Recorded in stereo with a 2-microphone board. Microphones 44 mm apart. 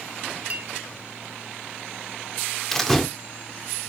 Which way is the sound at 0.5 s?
30° right (ahead or behind).